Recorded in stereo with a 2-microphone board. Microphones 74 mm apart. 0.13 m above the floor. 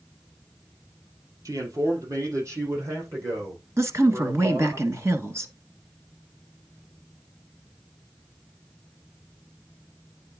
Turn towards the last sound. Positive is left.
turn(degrees=-40)  # may be behind; listen again after turning